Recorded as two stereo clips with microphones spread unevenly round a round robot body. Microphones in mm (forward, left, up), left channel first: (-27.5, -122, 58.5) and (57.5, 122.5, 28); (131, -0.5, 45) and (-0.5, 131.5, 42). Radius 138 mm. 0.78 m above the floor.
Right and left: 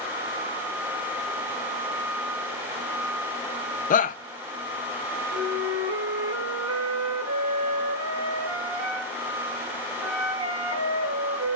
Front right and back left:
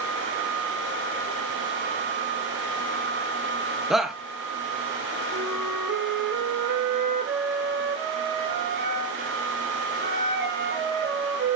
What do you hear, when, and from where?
3.9 s a shout: 140° right, 0.5 m
5.3 s a flute: 105° left, 2 m